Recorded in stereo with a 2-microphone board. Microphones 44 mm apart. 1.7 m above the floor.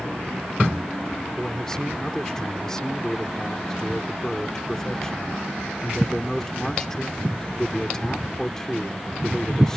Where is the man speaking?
15° left (ahead or behind).